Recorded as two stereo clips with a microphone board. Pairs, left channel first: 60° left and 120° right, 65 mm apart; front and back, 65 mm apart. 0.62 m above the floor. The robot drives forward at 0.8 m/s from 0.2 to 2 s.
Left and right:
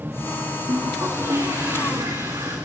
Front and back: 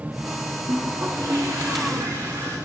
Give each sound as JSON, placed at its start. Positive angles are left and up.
{"t": 0.7, "sound": "a toilet flushing", "azimuth_deg": -145, "distance_m": 9.0}